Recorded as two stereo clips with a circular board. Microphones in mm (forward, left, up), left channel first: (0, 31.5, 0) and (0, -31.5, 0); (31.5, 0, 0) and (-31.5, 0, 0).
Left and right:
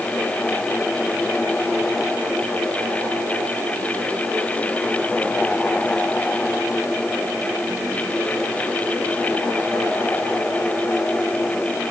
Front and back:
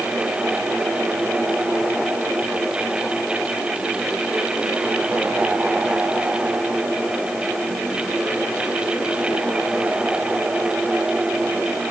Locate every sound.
Only background noise.